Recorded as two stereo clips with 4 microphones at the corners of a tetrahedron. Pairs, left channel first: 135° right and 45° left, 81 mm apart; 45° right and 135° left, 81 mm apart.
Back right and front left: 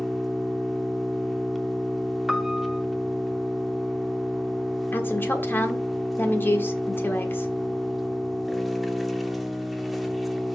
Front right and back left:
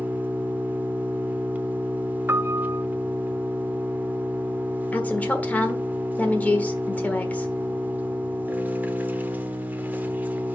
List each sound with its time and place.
0.0 s an engine running: 135° left, 0.8 m
2.3 s a piano: 130° left, 0.5 m
4.9 s a woman speaking: 95° right, 1.4 m